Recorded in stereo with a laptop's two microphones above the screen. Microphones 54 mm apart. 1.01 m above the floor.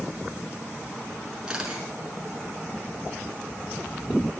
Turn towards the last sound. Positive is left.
turn(degrees=-15)  # may be behind; listen again after turning